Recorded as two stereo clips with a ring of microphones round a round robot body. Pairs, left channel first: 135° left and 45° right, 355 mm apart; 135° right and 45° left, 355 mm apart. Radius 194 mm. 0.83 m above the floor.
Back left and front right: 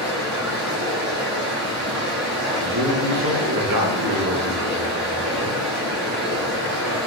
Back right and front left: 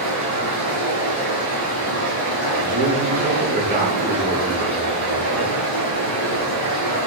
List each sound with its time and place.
0.0 s running water: 105° right, 3.5 m
2.6 s a man speaking: 20° right, 2 m